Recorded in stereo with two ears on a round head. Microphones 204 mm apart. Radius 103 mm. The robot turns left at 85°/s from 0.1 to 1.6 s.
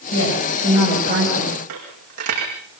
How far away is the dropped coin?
About 8 m.